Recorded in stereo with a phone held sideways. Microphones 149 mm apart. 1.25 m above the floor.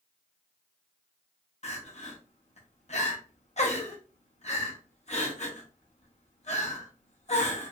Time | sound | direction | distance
1.6 | crying | 50° left (ahead or behind) | 0.8 m